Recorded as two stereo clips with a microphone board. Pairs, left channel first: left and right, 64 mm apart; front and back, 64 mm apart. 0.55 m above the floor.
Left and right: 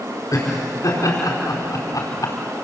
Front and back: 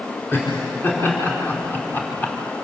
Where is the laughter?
55° left, 6 m; by 2.4 s 65° left, 3 m.